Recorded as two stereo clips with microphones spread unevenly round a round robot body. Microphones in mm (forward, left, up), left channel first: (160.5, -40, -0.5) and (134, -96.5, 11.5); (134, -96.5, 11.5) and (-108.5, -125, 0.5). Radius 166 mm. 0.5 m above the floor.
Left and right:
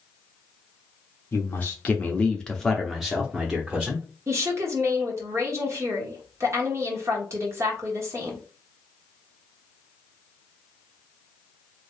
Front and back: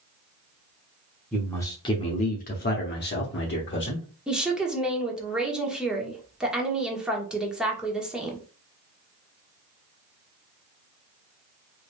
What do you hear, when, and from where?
1.3 s a man speaking: 95° left, 0.9 m; by 4.0 s 35° right, 1.3 m
4.3 s a woman speaking: 90° right, 1.3 m